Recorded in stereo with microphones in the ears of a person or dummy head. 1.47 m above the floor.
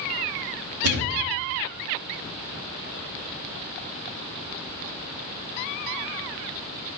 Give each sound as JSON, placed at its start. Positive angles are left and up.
{"t": 0.8, "sound": "a thud", "side_deg": -60, "distance_m": 2.0}